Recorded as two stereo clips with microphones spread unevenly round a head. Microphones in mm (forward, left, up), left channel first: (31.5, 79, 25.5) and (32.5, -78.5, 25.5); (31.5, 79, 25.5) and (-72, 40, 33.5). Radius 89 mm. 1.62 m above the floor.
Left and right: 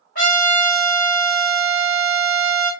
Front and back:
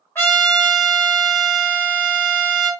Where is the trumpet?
90° left, 1.6 m.